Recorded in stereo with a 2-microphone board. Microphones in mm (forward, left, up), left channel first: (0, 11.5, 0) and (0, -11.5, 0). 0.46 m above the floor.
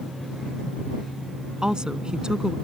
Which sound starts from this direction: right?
A woman speaking, at 1.6 s.